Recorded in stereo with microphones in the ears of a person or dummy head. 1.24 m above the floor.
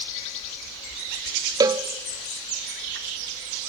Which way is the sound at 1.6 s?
20° right (ahead or behind).